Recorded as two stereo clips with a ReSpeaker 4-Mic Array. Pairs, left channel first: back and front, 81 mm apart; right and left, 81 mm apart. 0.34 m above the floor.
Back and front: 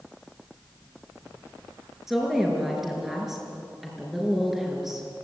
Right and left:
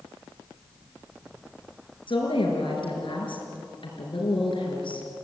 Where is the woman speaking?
85° right, 5.5 m.